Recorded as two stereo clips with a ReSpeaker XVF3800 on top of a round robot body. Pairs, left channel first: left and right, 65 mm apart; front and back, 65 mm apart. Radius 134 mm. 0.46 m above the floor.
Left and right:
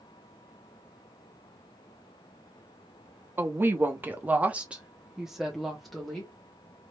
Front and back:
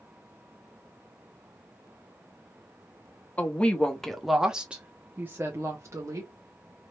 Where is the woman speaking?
55° right, 1.3 m; by 6.3 s 170° left, 1.6 m.